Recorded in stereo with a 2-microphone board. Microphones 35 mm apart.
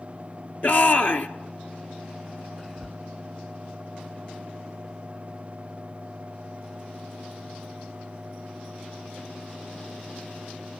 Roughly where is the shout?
Left.